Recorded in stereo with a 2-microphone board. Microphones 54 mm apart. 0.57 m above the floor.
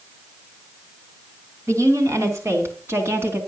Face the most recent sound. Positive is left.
turn(degrees=-40)  # may be behind; listen again after turning